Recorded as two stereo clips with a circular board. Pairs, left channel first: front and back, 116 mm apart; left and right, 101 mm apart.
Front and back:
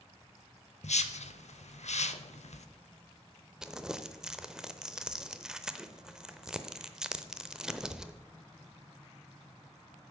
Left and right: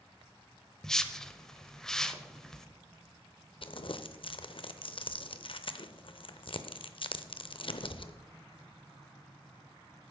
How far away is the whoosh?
About 0.6 m.